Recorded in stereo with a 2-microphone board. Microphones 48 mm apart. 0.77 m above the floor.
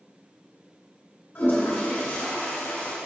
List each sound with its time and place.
1.4 s a toilet flushing: 55° left (ahead or behind), 1.9 m